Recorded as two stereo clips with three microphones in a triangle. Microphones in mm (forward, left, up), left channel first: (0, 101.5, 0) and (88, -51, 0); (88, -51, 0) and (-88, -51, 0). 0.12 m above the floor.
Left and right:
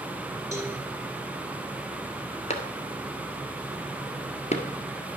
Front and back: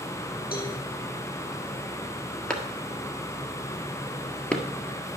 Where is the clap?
85° left, 1.4 m.